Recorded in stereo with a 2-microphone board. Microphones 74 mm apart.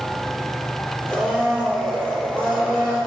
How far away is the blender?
About 4 m.